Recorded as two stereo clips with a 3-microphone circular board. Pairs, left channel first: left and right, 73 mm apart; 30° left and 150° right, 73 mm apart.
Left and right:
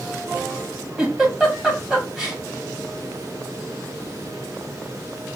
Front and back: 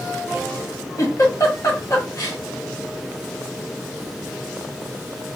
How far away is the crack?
No crack in this recording.